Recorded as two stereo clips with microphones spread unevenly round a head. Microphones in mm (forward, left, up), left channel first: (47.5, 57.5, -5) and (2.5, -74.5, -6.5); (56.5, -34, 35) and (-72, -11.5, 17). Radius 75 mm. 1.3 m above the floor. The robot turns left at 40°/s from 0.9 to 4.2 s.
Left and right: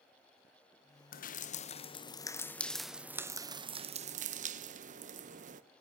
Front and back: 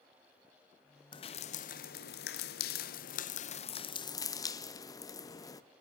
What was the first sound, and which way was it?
Dripping, 50° left.